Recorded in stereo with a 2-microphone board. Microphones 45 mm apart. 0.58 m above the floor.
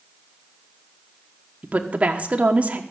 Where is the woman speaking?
30° right (ahead or behind), 1.2 m.